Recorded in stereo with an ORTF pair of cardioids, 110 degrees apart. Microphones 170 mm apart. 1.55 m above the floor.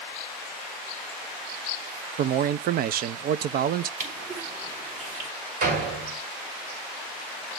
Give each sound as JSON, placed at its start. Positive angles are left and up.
{"t": 2.2, "sound": "a man speaking", "azimuth_deg": -60, "distance_m": 0.7}
{"t": 4.0, "sound": "crushing", "azimuth_deg": -50, "distance_m": 4.0}
{"t": 5.6, "sound": "a door slam", "azimuth_deg": -55, "distance_m": 6.0}